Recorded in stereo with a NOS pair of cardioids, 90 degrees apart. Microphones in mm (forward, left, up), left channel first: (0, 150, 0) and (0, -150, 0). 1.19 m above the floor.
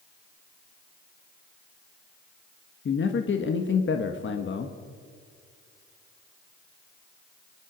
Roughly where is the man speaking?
Ahead left.